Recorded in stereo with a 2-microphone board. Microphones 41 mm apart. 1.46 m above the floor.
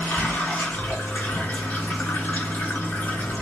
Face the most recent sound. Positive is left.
turn(degrees=50)  # may be behind; listen again after turning